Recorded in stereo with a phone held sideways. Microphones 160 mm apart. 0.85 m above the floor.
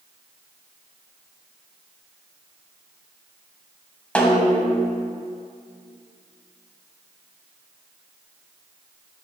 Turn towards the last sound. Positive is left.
turn(degrees=5)  # may be behind; listen again after turning